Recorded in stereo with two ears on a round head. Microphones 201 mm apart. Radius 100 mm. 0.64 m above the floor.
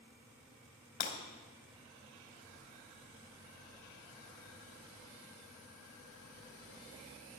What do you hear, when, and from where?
1.0 s breaking glass: 45° left (ahead or behind), 2.5 m
2.4 s a child speaking: 40° right (ahead or behind), 5.5 m